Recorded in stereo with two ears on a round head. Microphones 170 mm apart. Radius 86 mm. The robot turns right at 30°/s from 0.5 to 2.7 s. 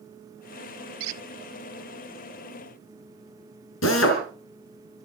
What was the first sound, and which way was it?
A squeak, 75° right (ahead or behind).